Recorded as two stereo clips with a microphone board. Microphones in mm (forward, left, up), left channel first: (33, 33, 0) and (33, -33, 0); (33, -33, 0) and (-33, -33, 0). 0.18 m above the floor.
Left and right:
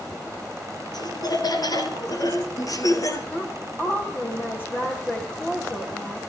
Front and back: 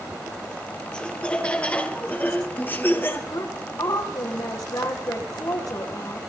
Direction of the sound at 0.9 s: 75° left.